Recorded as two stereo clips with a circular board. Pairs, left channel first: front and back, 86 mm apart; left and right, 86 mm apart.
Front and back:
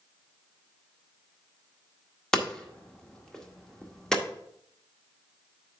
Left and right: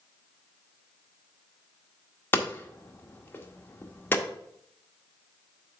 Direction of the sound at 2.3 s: 70° left.